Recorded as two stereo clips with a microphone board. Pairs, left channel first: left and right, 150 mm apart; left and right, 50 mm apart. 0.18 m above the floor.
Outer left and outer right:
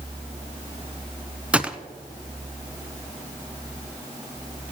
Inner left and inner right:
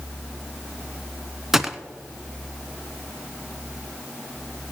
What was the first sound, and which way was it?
A gunshot, 10° right (ahead or behind).